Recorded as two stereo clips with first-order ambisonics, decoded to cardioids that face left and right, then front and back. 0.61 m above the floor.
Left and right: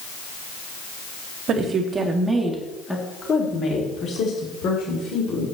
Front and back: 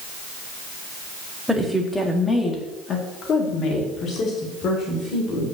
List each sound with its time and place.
1.5 s a woman speaking: 95° right, 1.4 m; by 5.5 s 50° left, 3 m